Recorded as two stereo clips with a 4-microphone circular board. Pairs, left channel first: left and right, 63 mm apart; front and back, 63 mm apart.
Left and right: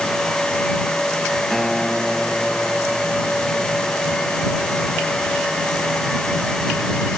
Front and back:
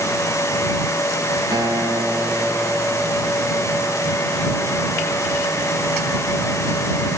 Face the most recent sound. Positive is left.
turn(degrees=175)